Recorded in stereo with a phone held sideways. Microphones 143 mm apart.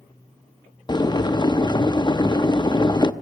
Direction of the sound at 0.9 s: 30° left (ahead or behind).